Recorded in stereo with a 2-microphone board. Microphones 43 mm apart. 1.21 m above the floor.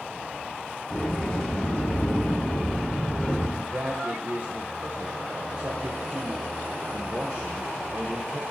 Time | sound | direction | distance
0.9 | a sliding door | 20° left (ahead or behind) | 5 m
3.6 | a man speaking | 50° right (ahead or behind) | 0.8 m